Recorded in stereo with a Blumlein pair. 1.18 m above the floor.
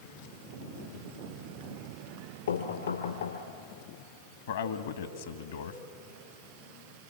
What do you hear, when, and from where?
2.5 s knocking: 60° left, 3 m
4.5 s a man speaking: 60° left, 1.7 m